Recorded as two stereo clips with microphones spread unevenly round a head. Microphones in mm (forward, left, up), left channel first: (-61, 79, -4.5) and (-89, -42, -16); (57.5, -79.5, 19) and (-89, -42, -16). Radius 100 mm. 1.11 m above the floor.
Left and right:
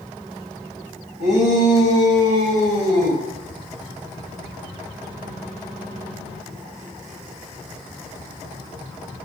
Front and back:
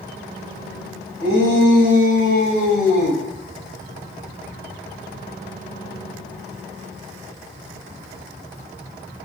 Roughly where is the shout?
Ahead.